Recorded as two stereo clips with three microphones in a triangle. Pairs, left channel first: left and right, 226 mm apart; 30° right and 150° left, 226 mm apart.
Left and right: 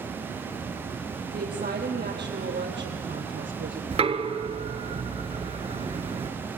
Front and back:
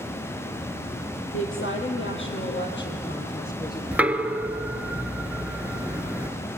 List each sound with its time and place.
1.3 s a woman speaking: 45° right, 4 m; by 3.8 s 70° right, 3 m
3.9 s knocking: 130° right, 0.9 m